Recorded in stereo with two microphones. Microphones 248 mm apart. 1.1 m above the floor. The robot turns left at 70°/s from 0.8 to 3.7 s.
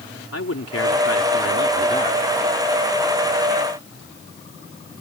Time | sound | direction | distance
0.3 | a man speaking | 105° left | ?